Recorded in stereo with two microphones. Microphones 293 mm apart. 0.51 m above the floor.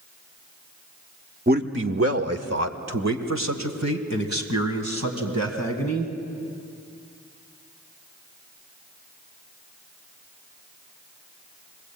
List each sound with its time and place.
1.5 s a man speaking: 30° right (ahead or behind), 1.0 m; by 6.1 s 65° right (ahead or behind), 4.5 m